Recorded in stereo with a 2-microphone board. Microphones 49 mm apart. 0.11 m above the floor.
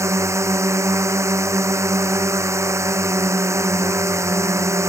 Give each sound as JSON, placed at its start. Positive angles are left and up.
{"t": 0.0, "sound": "a drone", "side_deg": -75}